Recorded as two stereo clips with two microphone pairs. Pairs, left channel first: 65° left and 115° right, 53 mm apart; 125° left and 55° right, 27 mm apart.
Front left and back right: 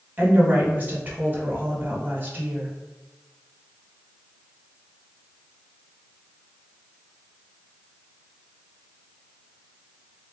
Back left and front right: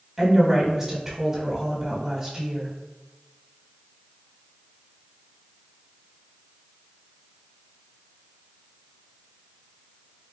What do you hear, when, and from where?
0.2 s a woman speaking: 130° right, 1.2 m